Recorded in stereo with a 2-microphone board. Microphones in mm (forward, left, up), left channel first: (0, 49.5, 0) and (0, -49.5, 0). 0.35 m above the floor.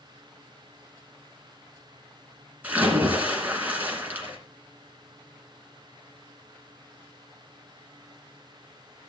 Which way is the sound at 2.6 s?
15° right (ahead or behind).